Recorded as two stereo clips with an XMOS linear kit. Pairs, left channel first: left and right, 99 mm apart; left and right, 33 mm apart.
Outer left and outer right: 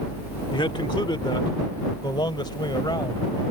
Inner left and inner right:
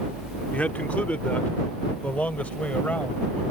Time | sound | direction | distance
0.5 | a man speaking | 55° left (ahead or behind) | ?